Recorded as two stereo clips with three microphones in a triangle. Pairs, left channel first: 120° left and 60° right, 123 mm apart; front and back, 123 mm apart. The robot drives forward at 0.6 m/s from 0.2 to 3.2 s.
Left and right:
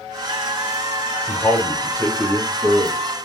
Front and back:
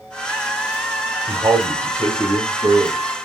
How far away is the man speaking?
About 1.0 m.